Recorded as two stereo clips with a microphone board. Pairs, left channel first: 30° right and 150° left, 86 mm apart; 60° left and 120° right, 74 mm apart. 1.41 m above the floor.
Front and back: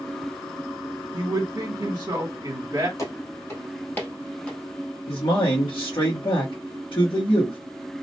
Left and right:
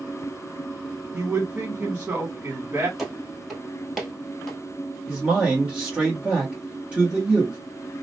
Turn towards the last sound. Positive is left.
turn(degrees=-45)